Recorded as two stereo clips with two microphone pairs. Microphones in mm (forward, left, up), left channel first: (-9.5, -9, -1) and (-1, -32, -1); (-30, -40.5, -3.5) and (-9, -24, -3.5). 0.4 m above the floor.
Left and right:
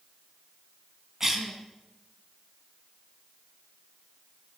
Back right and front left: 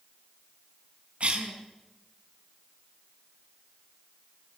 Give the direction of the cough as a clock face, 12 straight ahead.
12 o'clock.